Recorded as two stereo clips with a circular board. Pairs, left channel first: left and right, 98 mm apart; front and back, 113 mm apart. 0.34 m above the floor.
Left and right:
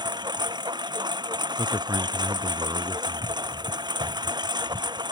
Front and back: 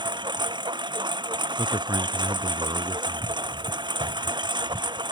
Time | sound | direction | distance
0.0 | a lawn mower | 135° right | ?
1.6 | a man speaking | 135° right | ?